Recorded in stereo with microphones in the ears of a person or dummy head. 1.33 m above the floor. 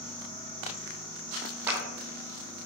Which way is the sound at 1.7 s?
15° right (ahead or behind).